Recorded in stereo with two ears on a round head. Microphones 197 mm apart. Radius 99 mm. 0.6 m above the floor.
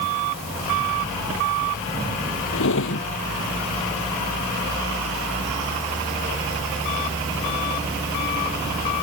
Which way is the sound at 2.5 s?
65° left (ahead or behind).